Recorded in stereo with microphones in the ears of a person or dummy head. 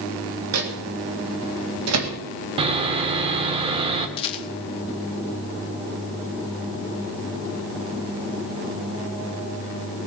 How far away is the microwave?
About 1.8 m.